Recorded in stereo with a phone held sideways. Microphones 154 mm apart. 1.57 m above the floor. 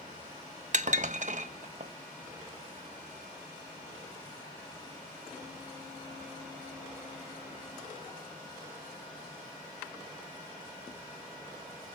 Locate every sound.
0.7 s dishes clattering: 55° right (ahead or behind), 1.1 m